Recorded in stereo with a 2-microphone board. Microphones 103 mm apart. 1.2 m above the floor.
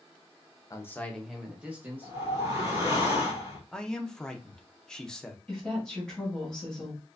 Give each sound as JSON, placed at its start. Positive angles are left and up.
{"t": 0.7, "sound": "a man speaking", "side_deg": 30, "distance_m": 0.7}
{"t": 2.0, "sound": "a whoosh", "side_deg": -30, "distance_m": 2.0}
{"t": 3.7, "sound": "a man speaking", "side_deg": 5, "distance_m": 0.7}
{"t": 5.5, "sound": "a woman speaking", "side_deg": 5, "distance_m": 1.9}